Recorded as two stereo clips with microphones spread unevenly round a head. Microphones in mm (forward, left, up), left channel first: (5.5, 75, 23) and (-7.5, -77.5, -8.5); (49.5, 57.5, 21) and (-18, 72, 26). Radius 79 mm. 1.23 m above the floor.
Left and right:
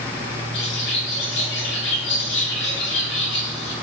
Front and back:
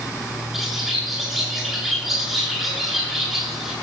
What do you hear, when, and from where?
0.5 s a bird: 80° left, 9 m